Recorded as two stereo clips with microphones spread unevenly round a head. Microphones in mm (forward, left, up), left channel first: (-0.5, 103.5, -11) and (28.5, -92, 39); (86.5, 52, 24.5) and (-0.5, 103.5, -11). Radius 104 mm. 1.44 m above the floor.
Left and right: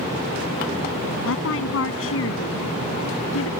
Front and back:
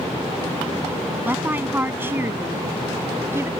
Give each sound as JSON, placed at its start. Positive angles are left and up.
{"t": 1.2, "sound": "a woman speaking", "azimuth_deg": 75}